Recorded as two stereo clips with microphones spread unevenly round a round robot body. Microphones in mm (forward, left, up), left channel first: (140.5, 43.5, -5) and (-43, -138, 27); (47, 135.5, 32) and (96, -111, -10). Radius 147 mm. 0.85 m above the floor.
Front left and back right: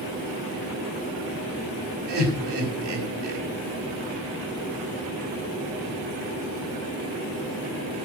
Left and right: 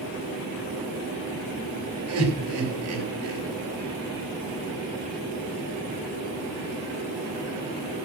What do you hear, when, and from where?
2.1 s laughter: 120° right, 4.5 m